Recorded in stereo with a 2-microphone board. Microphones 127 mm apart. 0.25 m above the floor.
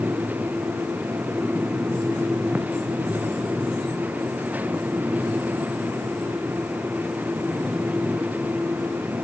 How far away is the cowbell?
I don't hear a cowbell.